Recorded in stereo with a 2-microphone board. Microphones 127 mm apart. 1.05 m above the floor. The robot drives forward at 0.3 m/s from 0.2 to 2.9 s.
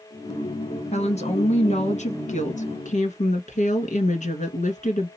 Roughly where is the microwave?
No microwave in this recording.